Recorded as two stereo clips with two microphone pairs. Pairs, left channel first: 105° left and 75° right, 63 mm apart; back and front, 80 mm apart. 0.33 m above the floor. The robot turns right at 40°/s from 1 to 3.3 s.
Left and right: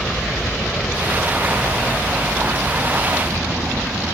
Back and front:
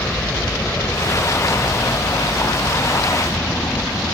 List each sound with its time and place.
0.0 s a helicopter: 175° right; by 4.1 s 135° right